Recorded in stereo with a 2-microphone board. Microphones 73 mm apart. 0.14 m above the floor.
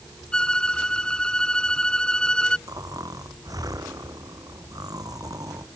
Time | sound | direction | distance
0.3 | a violin | 10° left (ahead or behind) | ?
2.7 | snoring | 55° right (ahead or behind) | ?